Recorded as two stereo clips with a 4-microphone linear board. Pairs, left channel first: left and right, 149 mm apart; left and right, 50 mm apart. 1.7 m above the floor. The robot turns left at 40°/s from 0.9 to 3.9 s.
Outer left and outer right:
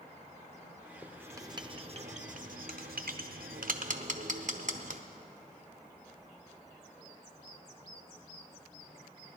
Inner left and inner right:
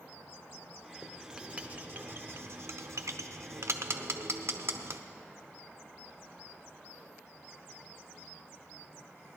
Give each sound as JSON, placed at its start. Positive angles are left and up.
{"t": 1.0, "sound": "writing", "side_deg": -10, "distance_m": 0.8}